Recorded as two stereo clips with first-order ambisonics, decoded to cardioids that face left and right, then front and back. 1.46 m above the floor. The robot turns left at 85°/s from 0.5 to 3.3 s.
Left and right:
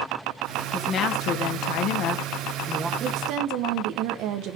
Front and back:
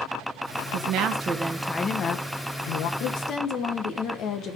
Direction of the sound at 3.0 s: 30° right.